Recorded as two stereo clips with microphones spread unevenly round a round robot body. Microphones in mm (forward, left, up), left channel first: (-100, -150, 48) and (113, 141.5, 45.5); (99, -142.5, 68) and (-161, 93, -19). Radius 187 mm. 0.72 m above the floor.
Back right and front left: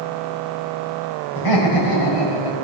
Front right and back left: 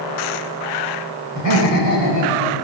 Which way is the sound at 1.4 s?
90° right.